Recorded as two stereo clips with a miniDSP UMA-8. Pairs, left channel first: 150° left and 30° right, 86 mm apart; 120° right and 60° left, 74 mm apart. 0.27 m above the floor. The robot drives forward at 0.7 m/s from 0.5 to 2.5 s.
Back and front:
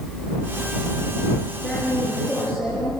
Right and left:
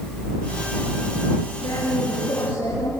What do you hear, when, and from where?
1.6 s a woman speaking: 125° right, 5 m; by 2.9 s 135° right, 5 m